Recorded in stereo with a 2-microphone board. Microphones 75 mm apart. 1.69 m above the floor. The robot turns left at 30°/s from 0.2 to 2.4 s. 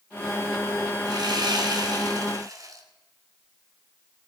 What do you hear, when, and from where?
1.1 s sawing: 85° right, 2.5 m; by 2.8 s 125° right, 2.5 m